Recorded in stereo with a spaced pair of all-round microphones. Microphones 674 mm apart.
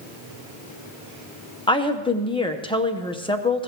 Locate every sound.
1.7 s a woman speaking: 5° left (ahead or behind), 1.0 m